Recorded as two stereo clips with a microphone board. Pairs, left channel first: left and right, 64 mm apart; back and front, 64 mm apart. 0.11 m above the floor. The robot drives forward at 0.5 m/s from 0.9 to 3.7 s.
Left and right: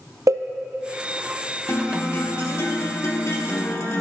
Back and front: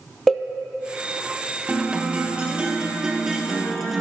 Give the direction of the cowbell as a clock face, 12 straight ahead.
3 o'clock.